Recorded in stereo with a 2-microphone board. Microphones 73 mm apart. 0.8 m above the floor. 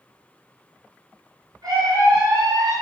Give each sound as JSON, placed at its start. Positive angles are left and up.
{"t": 1.6, "sound": "a scream", "side_deg": -75, "distance_m": 3.0}